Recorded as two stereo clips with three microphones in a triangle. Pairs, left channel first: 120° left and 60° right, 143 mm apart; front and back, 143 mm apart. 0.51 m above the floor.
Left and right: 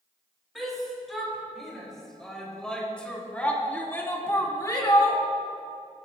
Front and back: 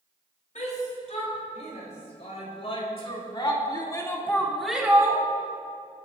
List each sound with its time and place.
0.6 s a shout: 30° left, 5 m; by 5.2 s 150° left, 1.4 m